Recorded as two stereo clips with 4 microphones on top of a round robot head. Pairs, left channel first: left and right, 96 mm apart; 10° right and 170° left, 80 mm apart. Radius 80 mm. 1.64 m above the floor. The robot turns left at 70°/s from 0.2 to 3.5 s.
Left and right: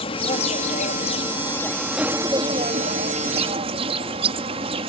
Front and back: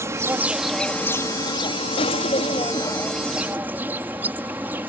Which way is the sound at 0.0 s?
115° left.